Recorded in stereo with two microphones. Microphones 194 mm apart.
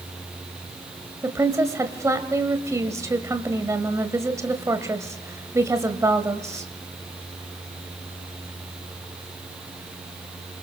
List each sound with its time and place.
1.2 s a woman speaking: 15° right (ahead or behind), 1.7 m